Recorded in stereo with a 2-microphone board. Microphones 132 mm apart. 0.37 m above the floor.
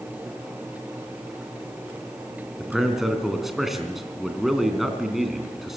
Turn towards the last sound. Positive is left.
turn(degrees=0)  # may be behind; listen again after turning